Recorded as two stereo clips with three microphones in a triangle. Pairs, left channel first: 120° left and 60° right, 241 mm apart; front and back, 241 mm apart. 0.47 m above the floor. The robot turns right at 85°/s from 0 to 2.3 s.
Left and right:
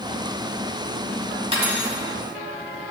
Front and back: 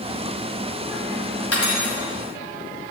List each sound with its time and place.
1.5 s cutlery clinking: 5° left, 1.7 m; by 2.0 s 45° left, 1.7 m